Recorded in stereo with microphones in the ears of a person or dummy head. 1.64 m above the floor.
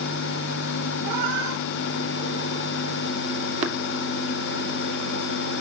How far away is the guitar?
I don't hear a guitar.